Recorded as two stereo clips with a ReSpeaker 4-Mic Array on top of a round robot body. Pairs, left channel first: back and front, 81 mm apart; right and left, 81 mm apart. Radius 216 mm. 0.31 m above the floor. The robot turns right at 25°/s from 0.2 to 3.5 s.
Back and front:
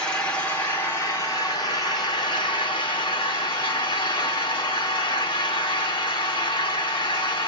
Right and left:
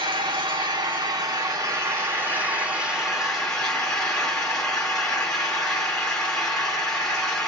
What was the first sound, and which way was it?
An engine running, 105° left.